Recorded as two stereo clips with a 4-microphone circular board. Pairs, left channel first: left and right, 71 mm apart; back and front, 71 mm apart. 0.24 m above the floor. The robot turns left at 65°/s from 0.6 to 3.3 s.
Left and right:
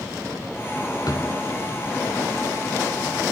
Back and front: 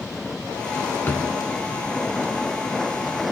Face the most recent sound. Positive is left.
turn(degrees=-25)